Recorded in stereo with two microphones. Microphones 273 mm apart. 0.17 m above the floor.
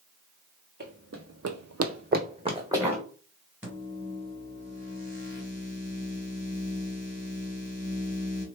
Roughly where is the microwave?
Centre.